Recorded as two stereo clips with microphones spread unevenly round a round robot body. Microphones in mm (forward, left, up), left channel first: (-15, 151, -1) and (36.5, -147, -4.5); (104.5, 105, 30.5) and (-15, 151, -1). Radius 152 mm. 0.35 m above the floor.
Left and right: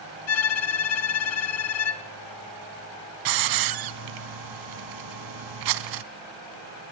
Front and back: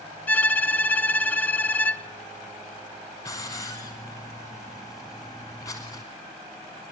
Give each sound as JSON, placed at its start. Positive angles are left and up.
{"t": 0.3, "sound": "a violin", "azimuth_deg": 60, "distance_m": 1.6}
{"t": 3.2, "sound": "a hiss", "azimuth_deg": -100, "distance_m": 1.4}